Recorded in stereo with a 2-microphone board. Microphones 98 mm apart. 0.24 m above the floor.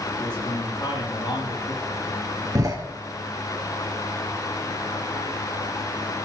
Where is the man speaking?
50° left (ahead or behind), 7 m.